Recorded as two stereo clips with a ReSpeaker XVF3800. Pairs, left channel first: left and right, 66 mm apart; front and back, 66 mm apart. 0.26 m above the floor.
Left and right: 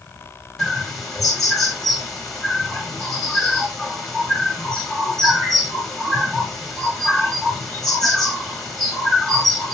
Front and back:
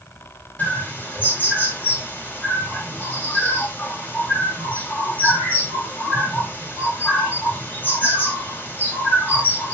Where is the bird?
10° left, 1.7 m.